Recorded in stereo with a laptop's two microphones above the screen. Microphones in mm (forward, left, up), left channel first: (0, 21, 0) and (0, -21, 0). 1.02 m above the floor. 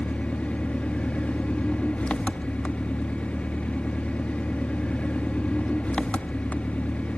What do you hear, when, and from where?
0.0 s an engine running: 30° left (ahead or behind), 0.7 m